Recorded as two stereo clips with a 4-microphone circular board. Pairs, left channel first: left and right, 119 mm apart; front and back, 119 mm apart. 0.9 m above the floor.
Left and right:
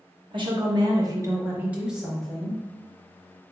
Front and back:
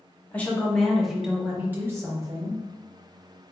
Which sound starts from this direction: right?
A woman speaking, at 0.3 s.